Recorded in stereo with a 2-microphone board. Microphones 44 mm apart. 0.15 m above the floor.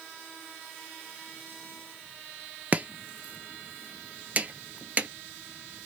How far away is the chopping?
About 0.5 m.